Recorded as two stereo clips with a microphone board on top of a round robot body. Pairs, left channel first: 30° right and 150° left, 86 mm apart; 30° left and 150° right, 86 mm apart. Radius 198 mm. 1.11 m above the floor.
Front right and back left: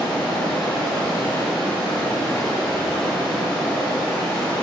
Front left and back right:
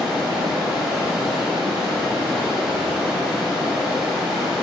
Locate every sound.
0.0 s running water: 105° right, 1.1 m